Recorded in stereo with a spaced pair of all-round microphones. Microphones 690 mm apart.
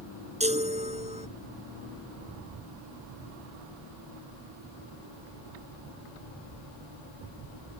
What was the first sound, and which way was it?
A chime, 10° right (ahead or behind).